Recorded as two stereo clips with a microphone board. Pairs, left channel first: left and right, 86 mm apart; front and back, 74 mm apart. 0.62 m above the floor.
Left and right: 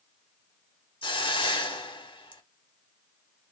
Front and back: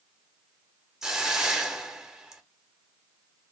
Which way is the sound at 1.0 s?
95° left.